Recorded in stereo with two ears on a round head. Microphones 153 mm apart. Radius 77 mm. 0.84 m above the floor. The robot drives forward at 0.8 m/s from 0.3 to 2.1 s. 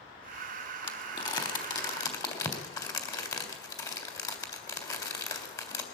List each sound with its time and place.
0.8 s crumpling: 30° left (ahead or behind), 2.5 m; by 5.8 s 25° left (ahead or behind), 3.5 m